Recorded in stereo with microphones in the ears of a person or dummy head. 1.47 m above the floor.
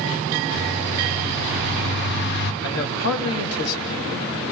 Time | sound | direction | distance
0.5 | a bird | 60° left (ahead or behind) | 1.6 m
2.6 | a man speaking | 85° left | 3 m